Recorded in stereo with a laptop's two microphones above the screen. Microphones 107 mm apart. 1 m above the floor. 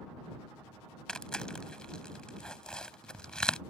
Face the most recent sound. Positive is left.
turn(degrees=5)  # may be behind; listen again after turning